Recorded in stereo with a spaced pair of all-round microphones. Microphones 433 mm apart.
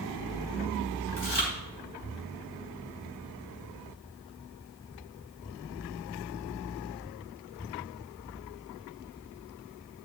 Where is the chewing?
80° left, 4 m.